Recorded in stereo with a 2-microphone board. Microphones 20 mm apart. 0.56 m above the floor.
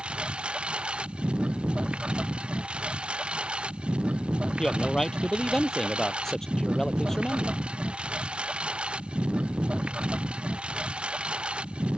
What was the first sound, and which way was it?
A lawn mower, 50° right (ahead or behind).